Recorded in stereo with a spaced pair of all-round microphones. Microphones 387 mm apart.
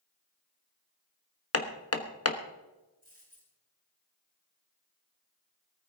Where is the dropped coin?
80° right, 7 m.